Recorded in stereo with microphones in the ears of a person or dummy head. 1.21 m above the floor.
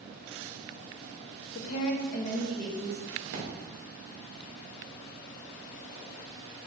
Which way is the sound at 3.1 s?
65° right (ahead or behind).